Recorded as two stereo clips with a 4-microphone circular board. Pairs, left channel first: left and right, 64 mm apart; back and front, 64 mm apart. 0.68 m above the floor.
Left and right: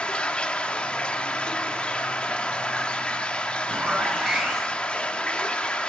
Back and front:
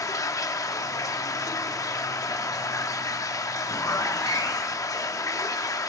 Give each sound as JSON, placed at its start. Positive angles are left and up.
{"t": 0.0, "sound": "running water", "azimuth_deg": 160, "distance_m": 0.7}
{"t": 3.7, "sound": "a zipper", "azimuth_deg": -170, "distance_m": 2.5}